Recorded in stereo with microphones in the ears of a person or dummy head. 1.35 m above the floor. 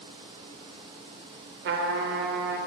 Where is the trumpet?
50° right (ahead or behind), 0.5 m.